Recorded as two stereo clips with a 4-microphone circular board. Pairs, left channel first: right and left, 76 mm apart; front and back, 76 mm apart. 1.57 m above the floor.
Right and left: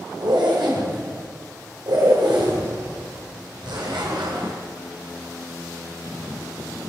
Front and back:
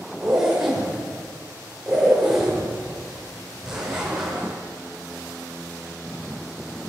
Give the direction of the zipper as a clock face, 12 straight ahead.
9 o'clock.